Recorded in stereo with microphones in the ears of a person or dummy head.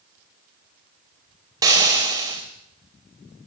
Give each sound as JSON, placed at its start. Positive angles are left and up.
{"t": 1.6, "sound": "frying", "side_deg": -20, "distance_m": 3.0}